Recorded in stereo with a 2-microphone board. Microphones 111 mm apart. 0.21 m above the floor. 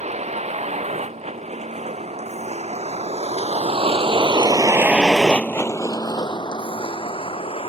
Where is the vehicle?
90° right; by 7.7 s 60° left (ahead or behind).